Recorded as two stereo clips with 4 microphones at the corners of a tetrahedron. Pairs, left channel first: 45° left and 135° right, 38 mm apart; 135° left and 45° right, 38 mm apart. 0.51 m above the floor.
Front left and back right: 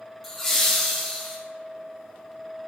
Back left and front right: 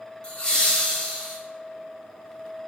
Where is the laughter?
130° left, 1.3 m.